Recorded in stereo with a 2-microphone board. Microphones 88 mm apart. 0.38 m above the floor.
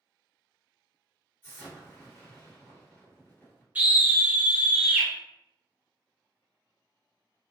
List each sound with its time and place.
1.4 s an explosion: 25° left (ahead or behind), 1.5 m
3.8 s a scream: 20° right (ahead or behind), 0.9 m